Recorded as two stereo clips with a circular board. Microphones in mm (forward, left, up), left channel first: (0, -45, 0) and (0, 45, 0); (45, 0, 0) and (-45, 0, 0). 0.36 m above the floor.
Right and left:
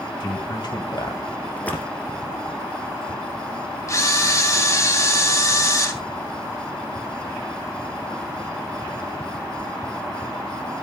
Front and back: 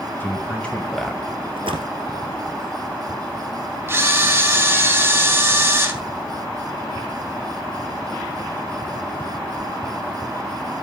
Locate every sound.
0.2 s a man speaking: 65° right, 3 m; by 1.2 s 85° right, 2 m
1.6 s a splash: 165° right, 1.7 m
3.9 s a camera shutter: 130° right, 2 m